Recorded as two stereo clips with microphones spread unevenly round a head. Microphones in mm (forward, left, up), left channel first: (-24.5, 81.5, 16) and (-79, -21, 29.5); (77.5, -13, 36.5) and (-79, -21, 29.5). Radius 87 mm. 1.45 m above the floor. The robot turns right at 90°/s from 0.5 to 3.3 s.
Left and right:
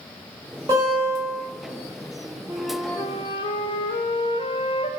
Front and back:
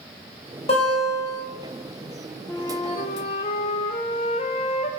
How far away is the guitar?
About 2.5 m.